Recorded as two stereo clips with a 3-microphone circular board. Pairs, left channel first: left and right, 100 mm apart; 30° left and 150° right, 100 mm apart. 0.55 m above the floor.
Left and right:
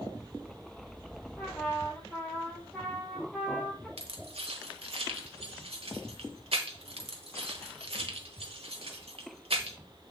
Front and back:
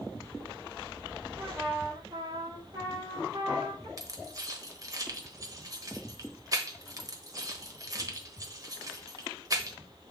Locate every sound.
1.4 s a trumpet: 170° left, 4 m
4.0 s keys jangling: 95° right, 1.3 m